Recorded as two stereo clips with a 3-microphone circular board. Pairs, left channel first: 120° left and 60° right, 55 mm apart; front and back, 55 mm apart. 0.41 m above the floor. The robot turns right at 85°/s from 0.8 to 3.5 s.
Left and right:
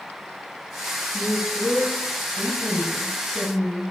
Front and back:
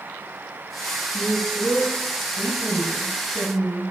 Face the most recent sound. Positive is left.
turn(degrees=0)